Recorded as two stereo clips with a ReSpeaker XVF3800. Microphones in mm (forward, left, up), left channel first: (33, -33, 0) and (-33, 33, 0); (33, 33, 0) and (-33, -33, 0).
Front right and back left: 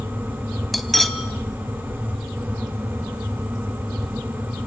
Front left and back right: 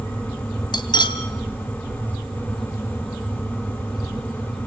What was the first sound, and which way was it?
Cutlery clinking, 45° left.